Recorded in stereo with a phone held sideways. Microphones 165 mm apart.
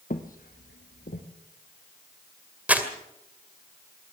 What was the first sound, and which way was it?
Footsteps, 60° left (ahead or behind).